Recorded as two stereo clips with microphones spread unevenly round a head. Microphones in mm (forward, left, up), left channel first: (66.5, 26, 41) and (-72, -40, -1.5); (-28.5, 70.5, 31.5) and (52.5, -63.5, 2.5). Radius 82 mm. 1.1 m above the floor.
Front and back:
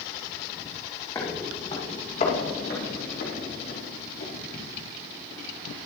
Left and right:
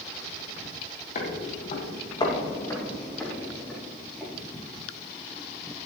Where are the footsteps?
95° left, 2.5 m; by 4.9 s 30° left, 5 m.